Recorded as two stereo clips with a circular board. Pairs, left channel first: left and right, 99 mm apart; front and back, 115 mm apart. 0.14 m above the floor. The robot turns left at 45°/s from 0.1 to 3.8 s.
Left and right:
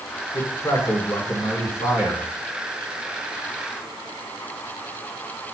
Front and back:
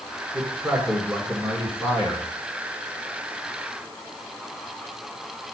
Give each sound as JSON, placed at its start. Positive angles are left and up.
{"t": 0.3, "sound": "a man speaking", "azimuth_deg": 130, "distance_m": 1.7}